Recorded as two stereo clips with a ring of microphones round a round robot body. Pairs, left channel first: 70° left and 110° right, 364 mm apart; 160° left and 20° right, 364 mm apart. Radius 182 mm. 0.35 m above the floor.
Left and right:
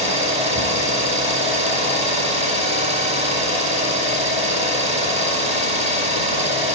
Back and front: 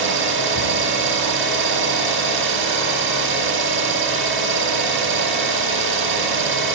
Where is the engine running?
50° right, 0.8 m.